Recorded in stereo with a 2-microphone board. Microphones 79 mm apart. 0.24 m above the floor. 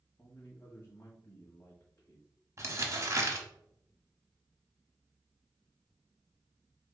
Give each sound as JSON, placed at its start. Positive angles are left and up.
{"t": 0.2, "sound": "a man speaking", "side_deg": 30, "distance_m": 1.3}
{"t": 2.6, "sound": "crumpling", "side_deg": -40, "distance_m": 1.0}